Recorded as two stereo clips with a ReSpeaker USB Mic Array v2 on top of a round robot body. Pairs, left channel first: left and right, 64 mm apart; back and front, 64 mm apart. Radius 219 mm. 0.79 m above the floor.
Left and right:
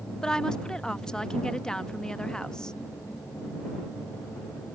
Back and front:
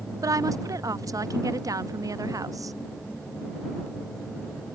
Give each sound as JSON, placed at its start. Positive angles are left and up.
{"t": 0.2, "sound": "a woman speaking", "azimuth_deg": 10}